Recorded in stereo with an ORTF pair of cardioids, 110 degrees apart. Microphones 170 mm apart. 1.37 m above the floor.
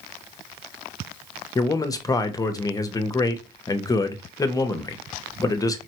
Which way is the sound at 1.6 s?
20° left.